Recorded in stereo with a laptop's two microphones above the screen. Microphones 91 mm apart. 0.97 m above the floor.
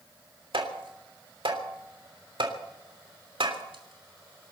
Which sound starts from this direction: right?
Tapping, at 0.5 s.